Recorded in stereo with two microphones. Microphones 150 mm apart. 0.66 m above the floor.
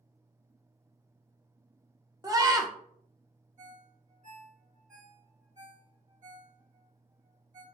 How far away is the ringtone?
About 1.5 m.